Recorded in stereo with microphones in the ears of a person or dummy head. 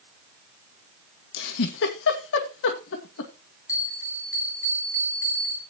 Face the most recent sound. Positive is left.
turn(degrees=15)  # may be behind; listen again after turning